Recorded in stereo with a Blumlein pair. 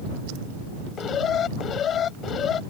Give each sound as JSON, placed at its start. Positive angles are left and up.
{"t": 1.0, "sound": "an alarm", "azimuth_deg": 25}